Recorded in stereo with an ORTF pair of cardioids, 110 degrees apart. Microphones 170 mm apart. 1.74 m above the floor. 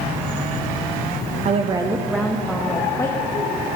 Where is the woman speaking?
40° right, 0.6 m; by 3.5 s 20° left, 1.5 m.